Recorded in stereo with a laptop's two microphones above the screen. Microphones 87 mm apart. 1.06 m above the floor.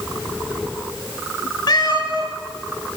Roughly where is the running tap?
I don't hear a running tap.